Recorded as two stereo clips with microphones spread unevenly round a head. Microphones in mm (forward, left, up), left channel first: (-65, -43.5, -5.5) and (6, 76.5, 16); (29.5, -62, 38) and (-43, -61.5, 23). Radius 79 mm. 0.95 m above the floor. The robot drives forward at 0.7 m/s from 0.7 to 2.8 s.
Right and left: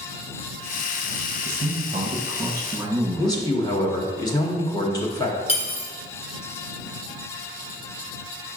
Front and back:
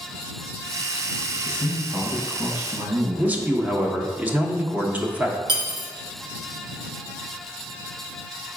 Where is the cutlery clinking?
170° right, 0.8 m.